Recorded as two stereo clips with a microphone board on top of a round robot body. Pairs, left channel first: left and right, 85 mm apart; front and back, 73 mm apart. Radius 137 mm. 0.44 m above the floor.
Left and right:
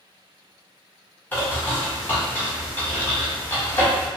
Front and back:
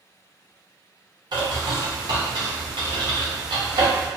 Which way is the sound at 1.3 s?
160° left.